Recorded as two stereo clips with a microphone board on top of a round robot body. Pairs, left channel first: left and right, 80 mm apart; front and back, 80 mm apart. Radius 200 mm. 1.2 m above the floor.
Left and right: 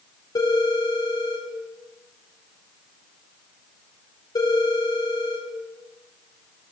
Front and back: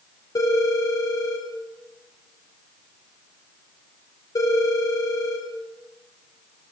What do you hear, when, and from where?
0.3 s a phone ringing: 45° left, 3 m